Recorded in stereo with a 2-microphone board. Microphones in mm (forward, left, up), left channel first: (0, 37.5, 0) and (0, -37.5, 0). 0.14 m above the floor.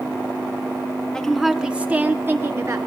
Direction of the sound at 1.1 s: 10° left (ahead or behind).